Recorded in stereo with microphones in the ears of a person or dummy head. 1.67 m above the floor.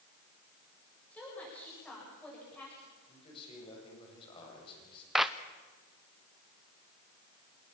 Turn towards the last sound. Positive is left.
turn(degrees=-5)  # may be behind; listen again after turning